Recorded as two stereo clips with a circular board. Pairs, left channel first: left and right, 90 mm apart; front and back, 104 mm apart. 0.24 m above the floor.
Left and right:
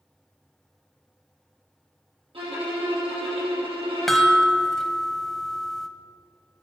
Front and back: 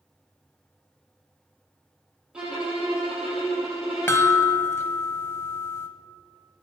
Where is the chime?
10° left, 0.9 m.